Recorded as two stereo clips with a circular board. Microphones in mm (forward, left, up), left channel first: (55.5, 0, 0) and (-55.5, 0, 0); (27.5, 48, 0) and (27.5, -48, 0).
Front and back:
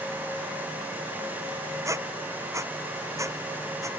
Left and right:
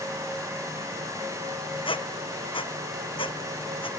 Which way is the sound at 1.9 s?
115° left.